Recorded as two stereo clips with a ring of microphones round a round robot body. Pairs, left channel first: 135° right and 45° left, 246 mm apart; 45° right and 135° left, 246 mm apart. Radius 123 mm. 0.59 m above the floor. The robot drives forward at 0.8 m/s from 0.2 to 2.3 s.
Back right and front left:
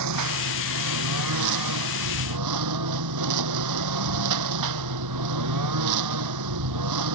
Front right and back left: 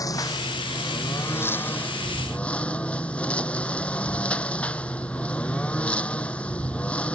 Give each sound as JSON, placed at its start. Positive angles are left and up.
{"t": 0.0, "sound": "a lawn mower", "azimuth_deg": 30}